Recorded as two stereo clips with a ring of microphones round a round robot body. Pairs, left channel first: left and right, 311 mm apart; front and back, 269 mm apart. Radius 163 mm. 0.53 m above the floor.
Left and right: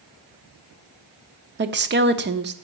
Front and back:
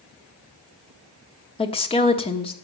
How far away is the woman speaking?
About 1.2 m.